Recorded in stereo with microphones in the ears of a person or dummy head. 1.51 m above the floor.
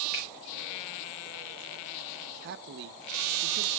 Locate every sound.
0.1 s a finger snap: centre (ahead or behind), 6.5 m
2.4 s a man speaking: 60° right (ahead or behind), 0.9 m